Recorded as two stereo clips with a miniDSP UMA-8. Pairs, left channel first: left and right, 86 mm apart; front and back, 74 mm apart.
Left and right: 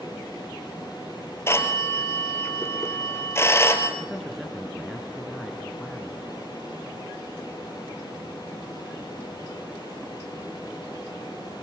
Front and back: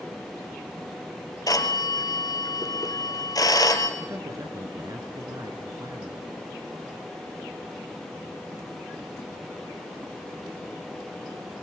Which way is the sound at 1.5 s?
30° left.